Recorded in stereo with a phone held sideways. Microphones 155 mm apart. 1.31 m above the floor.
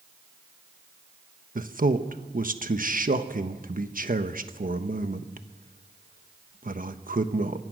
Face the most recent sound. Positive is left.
turn(degrees=-60)  # may be behind; listen again after turning